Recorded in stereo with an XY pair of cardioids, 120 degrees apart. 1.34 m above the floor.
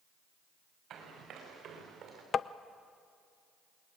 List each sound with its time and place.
0.9 s running footsteps: 55° right, 8 m; by 2.2 s 50° right, 7.5 m
2.3 s tapping: 40° left, 0.6 m